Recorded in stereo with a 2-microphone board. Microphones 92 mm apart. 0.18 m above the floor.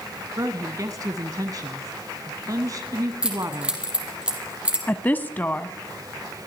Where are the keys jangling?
10° right (ahead or behind), 4.5 m.